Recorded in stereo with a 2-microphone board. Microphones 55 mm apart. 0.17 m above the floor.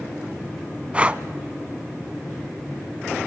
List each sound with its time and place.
0.9 s breathing: 20° right (ahead or behind), 0.5 m